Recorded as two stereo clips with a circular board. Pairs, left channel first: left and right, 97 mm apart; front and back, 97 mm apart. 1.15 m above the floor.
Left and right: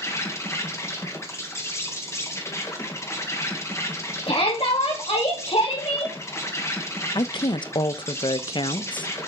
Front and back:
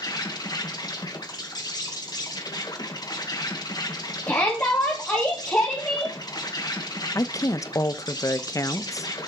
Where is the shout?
65° left, 2.5 m.